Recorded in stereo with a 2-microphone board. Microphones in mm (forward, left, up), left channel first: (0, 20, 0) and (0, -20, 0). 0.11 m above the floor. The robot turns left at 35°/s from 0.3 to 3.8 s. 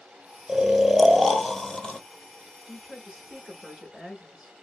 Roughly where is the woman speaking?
Right.